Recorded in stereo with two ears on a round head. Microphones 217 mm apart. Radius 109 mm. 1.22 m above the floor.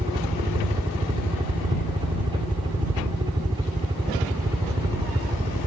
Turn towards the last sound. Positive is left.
turn(degrees=-15)  # may be behind; listen again after turning